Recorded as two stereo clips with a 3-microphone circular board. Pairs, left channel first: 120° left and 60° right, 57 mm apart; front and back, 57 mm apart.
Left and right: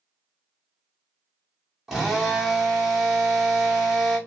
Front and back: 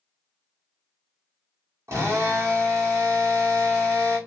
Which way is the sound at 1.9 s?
145° right.